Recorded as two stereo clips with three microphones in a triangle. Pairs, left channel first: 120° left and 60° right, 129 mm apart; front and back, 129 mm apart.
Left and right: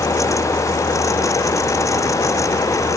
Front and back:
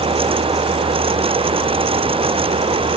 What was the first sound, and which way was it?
Only background noise.